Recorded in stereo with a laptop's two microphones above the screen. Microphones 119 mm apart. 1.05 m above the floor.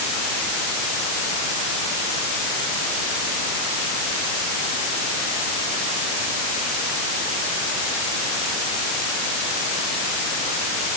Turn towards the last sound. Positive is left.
No sound to turn to.